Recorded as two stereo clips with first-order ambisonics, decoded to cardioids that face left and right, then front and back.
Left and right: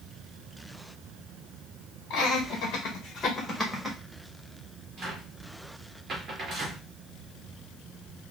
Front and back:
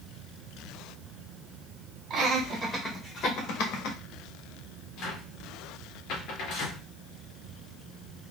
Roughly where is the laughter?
Behind left.